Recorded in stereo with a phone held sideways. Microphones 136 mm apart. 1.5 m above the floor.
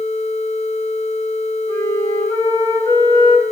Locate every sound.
1.7 s a flute: 25° left (ahead or behind), 2 m